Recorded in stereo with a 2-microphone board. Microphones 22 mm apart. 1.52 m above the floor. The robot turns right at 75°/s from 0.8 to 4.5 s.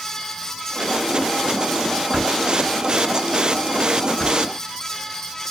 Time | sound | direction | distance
2.1 | a drawer | 35° right (ahead or behind) | 6 m